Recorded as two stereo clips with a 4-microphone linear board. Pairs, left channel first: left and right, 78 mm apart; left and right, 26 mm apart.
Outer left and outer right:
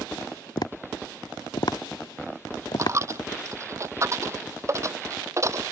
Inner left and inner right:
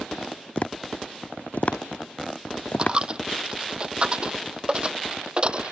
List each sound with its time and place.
0.6 s tapping: 60° left (ahead or behind)
2.8 s a dropped coin: 35° right (ahead or behind)